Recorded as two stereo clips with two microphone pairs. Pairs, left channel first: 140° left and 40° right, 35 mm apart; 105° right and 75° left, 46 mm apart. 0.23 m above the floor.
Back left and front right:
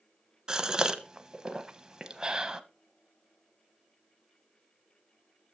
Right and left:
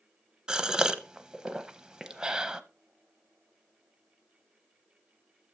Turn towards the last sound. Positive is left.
turn(degrees=10)